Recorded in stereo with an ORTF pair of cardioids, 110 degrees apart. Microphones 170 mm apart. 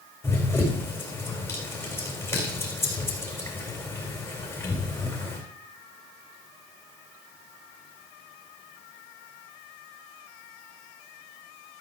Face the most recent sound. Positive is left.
turn(degrees=15)